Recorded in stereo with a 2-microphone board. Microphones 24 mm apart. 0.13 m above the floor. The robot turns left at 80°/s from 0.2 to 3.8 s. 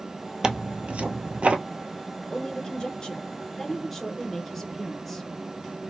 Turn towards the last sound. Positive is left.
turn(degrees=5)